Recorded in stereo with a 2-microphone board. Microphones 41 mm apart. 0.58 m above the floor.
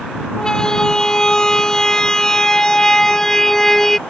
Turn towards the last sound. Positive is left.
turn(degrees=10)  # may be behind; listen again after turning